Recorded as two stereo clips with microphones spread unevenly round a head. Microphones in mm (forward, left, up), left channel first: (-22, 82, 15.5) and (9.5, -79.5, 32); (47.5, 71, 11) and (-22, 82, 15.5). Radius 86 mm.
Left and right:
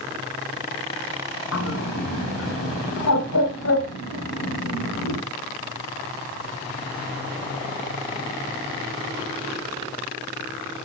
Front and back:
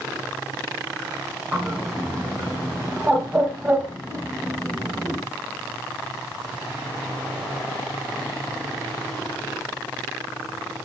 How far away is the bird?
About 2 m.